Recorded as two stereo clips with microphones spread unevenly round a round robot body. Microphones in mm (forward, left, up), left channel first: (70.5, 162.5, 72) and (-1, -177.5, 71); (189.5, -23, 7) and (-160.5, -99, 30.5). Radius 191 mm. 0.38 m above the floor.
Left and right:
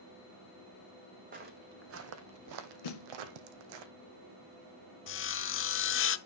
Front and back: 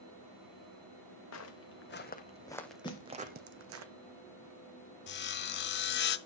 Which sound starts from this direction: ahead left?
Sawing, at 5.1 s.